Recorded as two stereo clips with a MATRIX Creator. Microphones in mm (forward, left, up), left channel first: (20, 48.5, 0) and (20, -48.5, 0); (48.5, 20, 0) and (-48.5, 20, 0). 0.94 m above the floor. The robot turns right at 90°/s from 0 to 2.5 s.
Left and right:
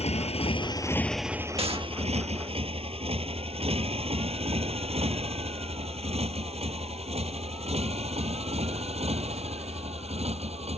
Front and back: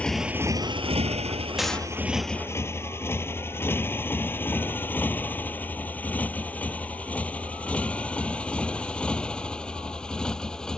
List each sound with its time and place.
0.0 s a motorcycle: 75° left; by 10.8 s 85° right
1.6 s a gunshot: 95° right; by 1.9 s 65° right